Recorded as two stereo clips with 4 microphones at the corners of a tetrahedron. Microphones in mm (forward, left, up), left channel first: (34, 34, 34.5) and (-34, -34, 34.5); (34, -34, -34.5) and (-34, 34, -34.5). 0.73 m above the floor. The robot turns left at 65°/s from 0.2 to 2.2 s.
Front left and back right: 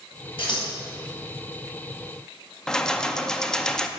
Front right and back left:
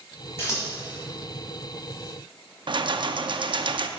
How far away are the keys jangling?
About 0.6 m.